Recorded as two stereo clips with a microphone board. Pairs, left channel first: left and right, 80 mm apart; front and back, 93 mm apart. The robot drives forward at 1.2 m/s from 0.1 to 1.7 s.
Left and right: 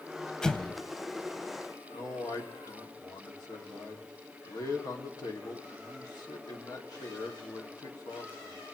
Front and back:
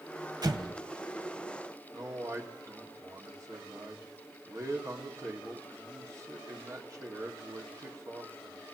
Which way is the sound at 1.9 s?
130° left.